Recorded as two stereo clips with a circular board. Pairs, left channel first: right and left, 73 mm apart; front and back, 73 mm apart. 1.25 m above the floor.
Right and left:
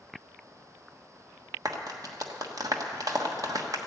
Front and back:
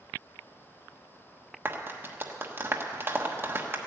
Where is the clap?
120° left, 1.2 m.